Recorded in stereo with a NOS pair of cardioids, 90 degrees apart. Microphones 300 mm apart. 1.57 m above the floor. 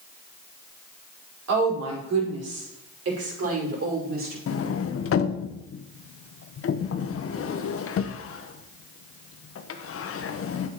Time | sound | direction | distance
1.5 | a woman speaking | 60° right | 5.5 m
4.5 | a sliding door | 50° left | 1.1 m